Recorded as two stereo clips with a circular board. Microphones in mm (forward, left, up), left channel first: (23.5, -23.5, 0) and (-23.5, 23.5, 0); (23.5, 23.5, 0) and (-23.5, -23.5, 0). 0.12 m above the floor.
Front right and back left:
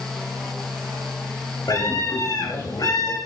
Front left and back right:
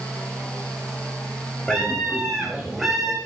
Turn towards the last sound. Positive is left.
turn(degrees=-45)